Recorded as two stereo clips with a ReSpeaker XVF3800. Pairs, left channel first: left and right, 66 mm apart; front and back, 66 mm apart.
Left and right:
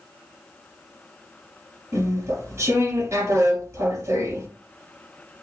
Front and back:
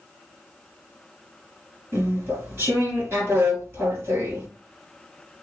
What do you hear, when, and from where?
1.9 s chewing: 130° right, 3 m